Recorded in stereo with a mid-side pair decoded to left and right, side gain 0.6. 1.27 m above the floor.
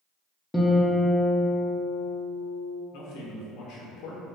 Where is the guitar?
10° left, 0.6 m.